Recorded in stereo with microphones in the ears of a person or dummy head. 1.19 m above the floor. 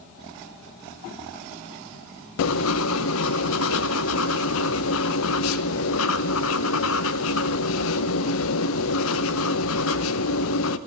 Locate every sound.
2.4 s writing: 75° left (ahead or behind), 0.7 m